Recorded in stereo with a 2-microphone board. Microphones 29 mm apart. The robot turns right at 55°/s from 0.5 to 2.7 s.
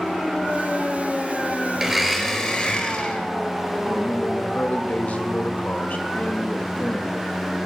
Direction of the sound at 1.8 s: 20° right.